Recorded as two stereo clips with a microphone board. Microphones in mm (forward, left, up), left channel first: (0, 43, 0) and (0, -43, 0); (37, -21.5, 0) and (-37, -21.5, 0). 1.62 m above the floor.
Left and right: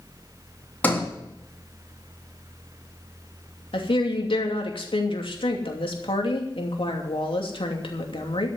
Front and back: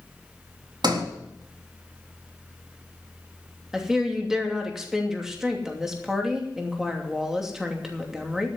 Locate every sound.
0.8 s a sliding door: 160° left, 3.5 m
3.7 s a woman speaking: 95° left, 2.5 m